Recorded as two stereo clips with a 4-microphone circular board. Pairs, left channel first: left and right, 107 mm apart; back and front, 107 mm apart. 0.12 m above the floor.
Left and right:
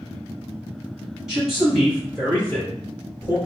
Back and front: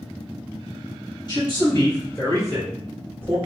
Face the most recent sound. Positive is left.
turn(degrees=110)